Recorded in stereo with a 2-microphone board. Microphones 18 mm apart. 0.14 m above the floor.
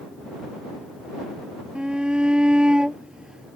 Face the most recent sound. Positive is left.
turn(degrees=-55)  # may be behind; listen again after turning